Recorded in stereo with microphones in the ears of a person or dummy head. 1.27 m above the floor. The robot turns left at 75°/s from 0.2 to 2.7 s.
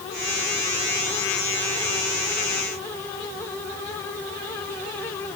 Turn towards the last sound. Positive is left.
No sound to turn to.